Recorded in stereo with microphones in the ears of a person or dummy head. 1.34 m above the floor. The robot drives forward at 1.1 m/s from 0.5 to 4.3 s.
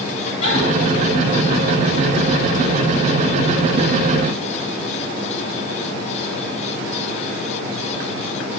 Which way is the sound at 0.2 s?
45° left (ahead or behind).